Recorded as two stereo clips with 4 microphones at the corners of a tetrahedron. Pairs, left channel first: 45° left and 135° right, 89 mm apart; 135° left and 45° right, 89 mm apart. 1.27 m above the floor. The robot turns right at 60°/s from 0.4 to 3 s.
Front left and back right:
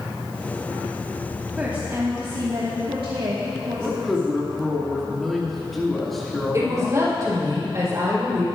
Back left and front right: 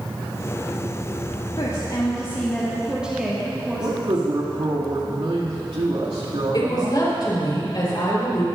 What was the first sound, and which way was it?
A woman speaking, 150° left.